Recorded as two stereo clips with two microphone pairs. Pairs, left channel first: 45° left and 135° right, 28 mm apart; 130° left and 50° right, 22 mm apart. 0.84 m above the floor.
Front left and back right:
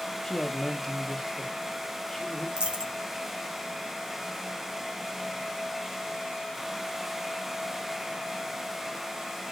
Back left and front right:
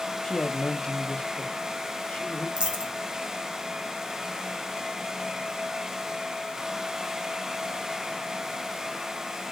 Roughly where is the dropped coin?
Right.